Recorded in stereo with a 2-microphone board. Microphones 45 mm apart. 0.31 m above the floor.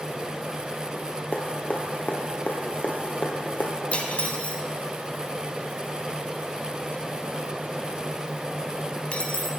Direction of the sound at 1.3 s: 40° left (ahead or behind).